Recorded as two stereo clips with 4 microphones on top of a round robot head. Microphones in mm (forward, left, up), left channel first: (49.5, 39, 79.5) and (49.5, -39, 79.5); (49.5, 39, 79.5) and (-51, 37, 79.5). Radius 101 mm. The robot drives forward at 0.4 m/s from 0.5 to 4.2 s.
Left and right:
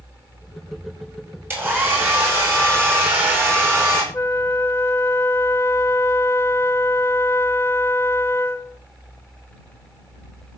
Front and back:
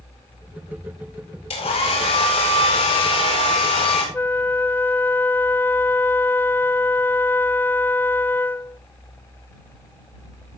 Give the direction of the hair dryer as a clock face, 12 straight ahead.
1 o'clock.